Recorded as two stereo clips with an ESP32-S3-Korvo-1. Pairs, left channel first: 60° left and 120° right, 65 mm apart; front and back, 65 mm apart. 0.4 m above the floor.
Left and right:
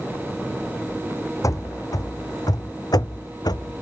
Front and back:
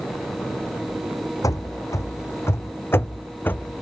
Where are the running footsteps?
30° left; by 3.8 s 65° left.